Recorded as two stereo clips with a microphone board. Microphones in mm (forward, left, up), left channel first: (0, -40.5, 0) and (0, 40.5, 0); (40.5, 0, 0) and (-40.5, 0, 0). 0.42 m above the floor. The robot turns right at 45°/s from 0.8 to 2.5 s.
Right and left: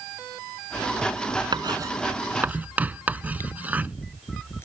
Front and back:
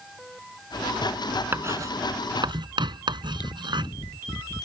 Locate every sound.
1.5 s writing: 120° left; by 4.0 s 160° left
3.1 s chewing: 30° right